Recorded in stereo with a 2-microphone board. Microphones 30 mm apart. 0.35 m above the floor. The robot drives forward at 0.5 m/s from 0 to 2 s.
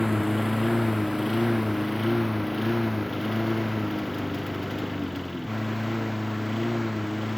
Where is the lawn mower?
5° right (ahead or behind); by 7.4 s centre (ahead or behind).